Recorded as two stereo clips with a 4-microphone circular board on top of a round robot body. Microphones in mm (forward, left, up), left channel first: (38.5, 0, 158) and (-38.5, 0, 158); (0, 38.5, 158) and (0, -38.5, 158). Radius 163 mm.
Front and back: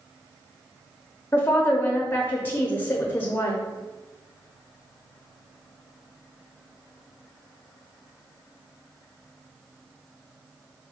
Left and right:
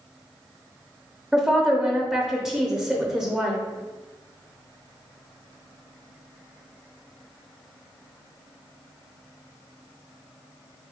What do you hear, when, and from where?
1.3 s a woman speaking: 15° right, 0.8 m